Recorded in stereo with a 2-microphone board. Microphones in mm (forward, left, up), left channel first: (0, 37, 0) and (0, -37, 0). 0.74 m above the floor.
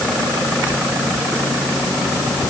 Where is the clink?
No clink in this recording.